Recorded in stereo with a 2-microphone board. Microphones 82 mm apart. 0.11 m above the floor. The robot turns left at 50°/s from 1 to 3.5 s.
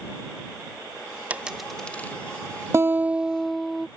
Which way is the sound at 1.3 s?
15° right (ahead or behind).